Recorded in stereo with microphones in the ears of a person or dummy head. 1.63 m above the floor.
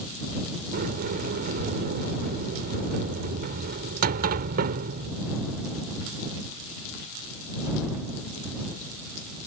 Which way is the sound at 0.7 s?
45° right (ahead or behind).